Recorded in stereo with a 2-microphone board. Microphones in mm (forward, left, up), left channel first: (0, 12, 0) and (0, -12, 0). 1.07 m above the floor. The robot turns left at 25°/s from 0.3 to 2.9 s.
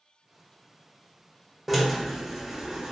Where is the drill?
Straight ahead, 0.7 m; by 2.9 s 30° right, 0.7 m.